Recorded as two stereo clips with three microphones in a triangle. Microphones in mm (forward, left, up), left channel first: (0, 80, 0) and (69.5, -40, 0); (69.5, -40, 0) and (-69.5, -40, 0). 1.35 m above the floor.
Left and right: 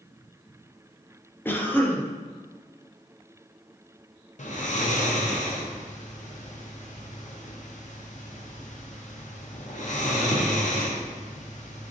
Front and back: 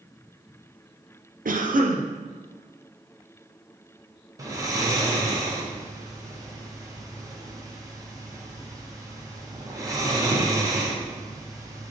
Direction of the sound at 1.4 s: 165° right.